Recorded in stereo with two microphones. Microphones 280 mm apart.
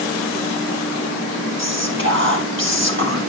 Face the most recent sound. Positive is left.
turn(degrees=-40)  # may be behind; listen again after turning